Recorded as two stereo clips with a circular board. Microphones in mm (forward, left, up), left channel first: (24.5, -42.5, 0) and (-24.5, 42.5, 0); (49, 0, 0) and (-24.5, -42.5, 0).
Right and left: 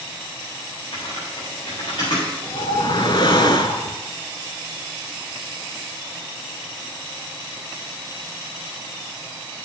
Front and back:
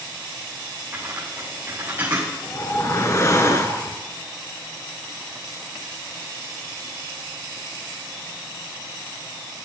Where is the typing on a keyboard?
90° right, 4.5 m.